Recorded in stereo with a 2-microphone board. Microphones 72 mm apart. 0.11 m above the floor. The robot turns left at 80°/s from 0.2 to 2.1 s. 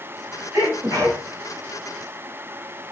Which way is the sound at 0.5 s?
55° right.